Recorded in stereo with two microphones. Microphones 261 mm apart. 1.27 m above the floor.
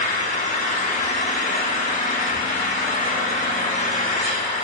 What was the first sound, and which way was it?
An engine running, 30° left (ahead or behind).